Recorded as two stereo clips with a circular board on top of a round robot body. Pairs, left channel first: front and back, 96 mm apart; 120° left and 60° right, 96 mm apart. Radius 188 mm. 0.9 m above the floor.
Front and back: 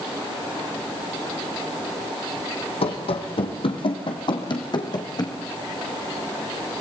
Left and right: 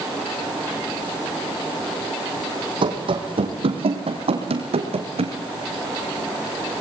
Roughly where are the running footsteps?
Ahead right.